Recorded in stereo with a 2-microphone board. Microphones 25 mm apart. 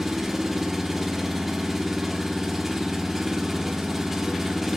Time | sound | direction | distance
0.0 | an engine running | 10° right (ahead or behind) | 1.4 m